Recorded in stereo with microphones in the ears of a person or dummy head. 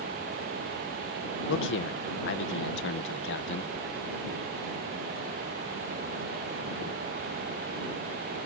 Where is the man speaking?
65° left (ahead or behind).